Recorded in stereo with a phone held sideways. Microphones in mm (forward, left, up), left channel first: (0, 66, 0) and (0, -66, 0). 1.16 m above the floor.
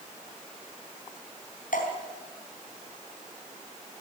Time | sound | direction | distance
1.7 | dripping | 80° left | 4 m